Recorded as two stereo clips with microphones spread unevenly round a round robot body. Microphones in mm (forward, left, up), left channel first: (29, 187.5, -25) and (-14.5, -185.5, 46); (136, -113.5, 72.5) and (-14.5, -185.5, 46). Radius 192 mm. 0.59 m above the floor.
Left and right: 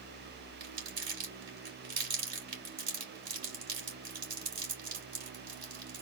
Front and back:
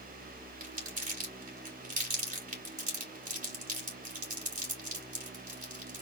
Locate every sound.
0.6 s crumpling: 170° right, 3 m